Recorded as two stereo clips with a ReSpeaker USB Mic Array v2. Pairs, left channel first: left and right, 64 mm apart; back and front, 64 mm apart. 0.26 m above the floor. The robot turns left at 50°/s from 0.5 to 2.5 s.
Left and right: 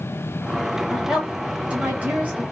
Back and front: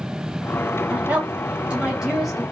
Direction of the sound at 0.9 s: 10° right.